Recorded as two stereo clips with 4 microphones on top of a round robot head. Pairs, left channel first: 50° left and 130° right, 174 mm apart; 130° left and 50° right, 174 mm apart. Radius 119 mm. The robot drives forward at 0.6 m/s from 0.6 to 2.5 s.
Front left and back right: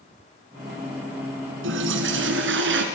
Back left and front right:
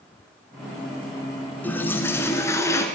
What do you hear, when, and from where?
1.6 s a toilet flushing: 150° right, 2.5 m; by 2.9 s 155° right, 3 m